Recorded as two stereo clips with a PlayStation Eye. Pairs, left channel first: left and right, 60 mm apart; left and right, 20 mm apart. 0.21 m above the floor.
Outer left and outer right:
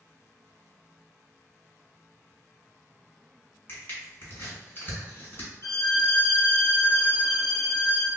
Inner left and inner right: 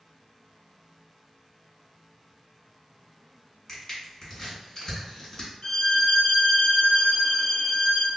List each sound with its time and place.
3.7 s crushing: 35° left (ahead or behind), 1.9 m
5.6 s a violin: 55° left (ahead or behind), 1.0 m